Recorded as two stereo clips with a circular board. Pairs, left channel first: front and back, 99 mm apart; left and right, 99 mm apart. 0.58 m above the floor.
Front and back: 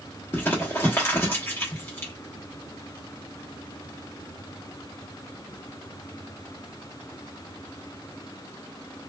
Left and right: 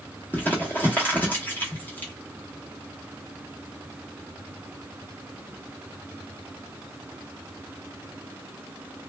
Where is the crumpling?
45° left, 0.9 m.